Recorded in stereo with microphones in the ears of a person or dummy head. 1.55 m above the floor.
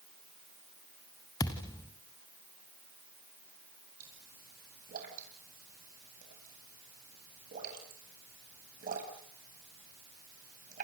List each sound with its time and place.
1.4 s a thud: 15° left (ahead or behind), 2 m
4.0 s a pop: 50° right (ahead or behind), 9 m